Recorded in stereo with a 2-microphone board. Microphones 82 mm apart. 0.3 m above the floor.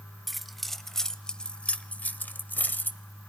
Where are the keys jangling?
Centre (ahead or behind), 1.2 m; by 3.0 s 20° left (ahead or behind), 1.0 m.